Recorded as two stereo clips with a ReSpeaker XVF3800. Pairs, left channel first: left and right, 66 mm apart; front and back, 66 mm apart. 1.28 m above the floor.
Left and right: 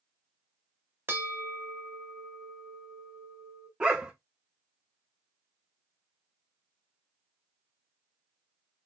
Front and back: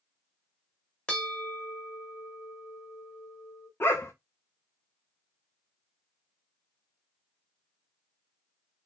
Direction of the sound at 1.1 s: 70° right.